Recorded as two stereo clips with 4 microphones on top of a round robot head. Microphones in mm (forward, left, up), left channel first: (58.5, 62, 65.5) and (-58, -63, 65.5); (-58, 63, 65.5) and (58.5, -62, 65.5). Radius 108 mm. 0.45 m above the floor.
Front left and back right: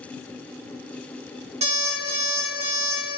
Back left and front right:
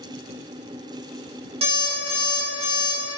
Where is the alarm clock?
95° right, 0.8 m.